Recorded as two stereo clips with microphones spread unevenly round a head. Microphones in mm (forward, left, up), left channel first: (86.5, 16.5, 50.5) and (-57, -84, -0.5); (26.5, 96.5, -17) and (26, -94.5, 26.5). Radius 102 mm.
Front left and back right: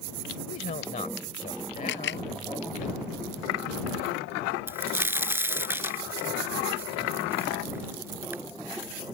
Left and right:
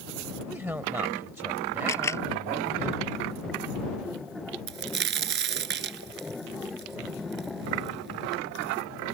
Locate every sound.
0.5 s a woman speaking: 10° right
1.9 s a camera shutter: 15° left
4.7 s a crack: 65° right